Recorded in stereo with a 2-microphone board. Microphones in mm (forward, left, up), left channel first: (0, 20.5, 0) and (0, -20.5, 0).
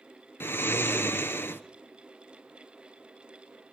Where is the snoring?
70° left (ahead or behind), 0.9 m.